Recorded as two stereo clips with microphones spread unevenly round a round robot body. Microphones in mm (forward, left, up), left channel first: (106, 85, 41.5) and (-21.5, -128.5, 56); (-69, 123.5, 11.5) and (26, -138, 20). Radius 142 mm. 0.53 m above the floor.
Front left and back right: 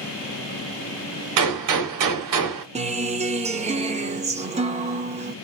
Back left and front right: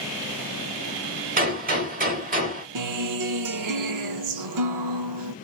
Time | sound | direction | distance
1.4 | a gunshot | 130° right | 1.1 m
2.8 | a guitar | 55° right | 0.8 m